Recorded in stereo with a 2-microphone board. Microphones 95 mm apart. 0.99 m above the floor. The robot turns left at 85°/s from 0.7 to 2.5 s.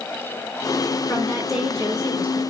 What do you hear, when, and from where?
1.1 s a woman speaking: 35° left, 5.5 m; by 2.4 s 80° right, 5.5 m